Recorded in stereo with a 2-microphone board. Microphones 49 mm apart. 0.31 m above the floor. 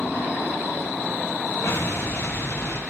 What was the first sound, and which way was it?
An explosion, 70° left (ahead or behind).